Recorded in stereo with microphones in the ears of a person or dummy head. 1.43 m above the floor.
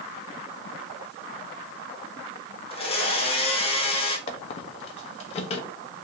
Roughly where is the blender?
Left.